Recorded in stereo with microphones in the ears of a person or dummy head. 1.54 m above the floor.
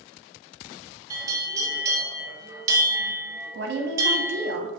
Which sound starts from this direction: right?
A woman speaking, at 3.5 s.